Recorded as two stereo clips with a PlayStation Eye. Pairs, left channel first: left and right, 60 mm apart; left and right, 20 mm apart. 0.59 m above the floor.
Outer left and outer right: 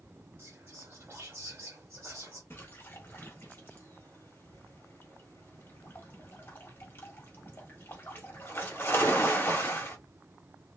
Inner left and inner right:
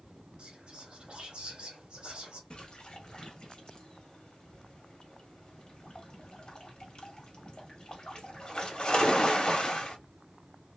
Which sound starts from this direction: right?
Whispering, at 0.4 s.